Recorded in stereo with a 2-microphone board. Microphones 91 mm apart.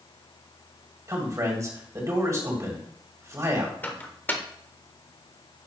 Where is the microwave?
20° left (ahead or behind), 0.8 m.